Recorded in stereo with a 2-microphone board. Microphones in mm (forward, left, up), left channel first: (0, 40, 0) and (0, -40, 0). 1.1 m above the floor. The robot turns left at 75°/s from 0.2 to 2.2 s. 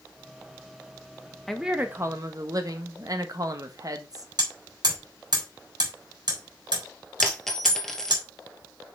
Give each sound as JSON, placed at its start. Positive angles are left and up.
{"t": 1.5, "sound": "a woman speaking", "azimuth_deg": 5, "distance_m": 1.3}
{"t": 4.4, "sound": "hammering", "side_deg": -60, "distance_m": 4.0}
{"t": 7.2, "sound": "a dropped coin", "side_deg": 5, "distance_m": 1.8}